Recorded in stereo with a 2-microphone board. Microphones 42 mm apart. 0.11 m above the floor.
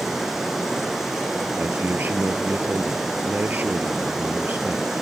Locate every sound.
0.0 s running water: 5° right (ahead or behind), 4.5 m
1.6 s a man speaking: 50° right (ahead or behind), 1.8 m